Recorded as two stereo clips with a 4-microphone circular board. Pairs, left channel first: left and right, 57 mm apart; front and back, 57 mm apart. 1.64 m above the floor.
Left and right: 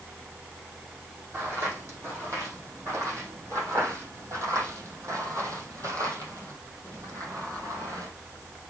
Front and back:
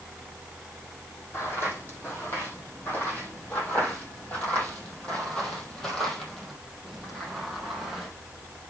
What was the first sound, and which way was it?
Footsteps, 50° right.